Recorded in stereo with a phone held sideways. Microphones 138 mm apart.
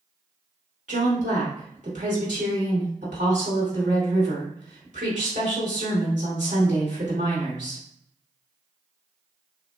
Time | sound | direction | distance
0.9 | a woman speaking | 60° right (ahead or behind) | 2 m